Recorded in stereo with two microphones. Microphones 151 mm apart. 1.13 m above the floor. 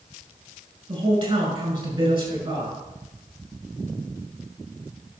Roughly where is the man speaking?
Right.